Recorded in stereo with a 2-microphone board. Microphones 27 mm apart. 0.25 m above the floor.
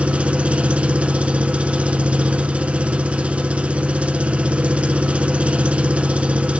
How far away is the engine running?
About 1.1 m.